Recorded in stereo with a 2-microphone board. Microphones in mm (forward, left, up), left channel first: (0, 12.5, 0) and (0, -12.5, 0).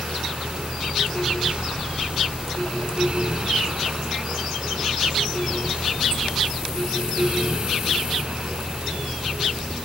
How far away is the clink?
I don't hear a clink.